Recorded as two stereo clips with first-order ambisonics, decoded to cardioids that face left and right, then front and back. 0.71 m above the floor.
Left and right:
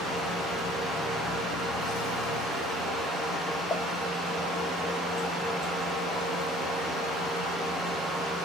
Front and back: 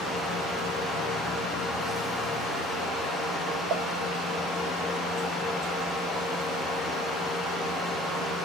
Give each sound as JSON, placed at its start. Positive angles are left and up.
{"t": 3.7, "sound": "a pop", "azimuth_deg": 175, "distance_m": 1.9}